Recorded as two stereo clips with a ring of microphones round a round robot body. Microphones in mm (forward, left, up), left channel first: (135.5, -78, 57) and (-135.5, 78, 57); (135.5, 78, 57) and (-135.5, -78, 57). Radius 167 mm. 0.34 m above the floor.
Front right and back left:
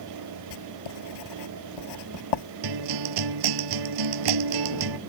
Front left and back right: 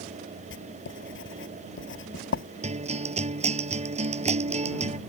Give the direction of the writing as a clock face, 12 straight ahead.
1 o'clock.